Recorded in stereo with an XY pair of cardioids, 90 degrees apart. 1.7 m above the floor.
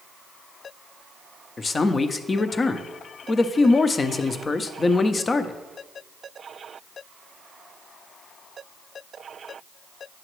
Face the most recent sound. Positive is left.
turn(degrees=35)